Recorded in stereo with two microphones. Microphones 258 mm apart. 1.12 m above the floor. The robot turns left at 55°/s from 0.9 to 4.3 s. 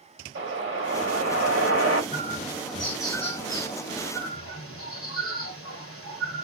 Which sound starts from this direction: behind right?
A bird, at 2.1 s.